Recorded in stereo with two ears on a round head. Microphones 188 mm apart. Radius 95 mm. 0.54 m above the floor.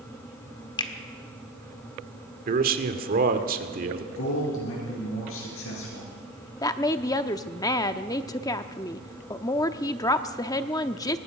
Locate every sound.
0.8 s a finger snap: 25° left (ahead or behind), 1.7 m
2.5 s a man speaking: 45° right (ahead or behind), 1.7 m
4.1 s a man speaking: 75° left (ahead or behind), 7.5 m
6.6 s a woman speaking: 15° left (ahead or behind), 0.7 m